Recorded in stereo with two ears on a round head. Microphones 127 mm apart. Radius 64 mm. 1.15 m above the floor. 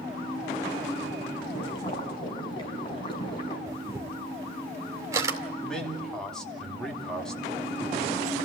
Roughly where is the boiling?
Left.